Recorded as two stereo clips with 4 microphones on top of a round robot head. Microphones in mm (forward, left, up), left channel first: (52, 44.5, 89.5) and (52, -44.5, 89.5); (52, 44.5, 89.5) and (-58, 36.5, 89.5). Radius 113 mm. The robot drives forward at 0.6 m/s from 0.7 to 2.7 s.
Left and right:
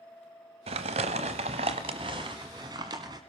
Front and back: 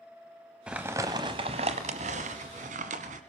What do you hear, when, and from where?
0.7 s crumpling: 90° right, 0.9 m; by 3.2 s 150° right, 1.5 m